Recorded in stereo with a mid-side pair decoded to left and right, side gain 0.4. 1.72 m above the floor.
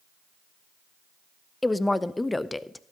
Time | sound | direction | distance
1.6 | a woman speaking | 15° left | 0.5 m